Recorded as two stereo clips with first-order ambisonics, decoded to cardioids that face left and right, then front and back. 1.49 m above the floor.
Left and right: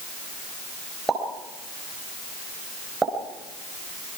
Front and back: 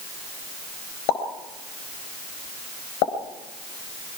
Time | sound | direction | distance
1.1 | a pop | 10° right | 4.5 m